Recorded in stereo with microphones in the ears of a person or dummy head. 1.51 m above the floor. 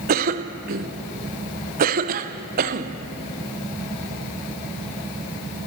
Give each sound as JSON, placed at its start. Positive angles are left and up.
{"t": 0.1, "sound": "a cough", "side_deg": -50, "distance_m": 0.8}